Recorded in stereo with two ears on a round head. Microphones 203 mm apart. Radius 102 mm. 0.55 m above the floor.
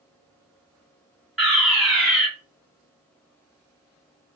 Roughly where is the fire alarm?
Centre.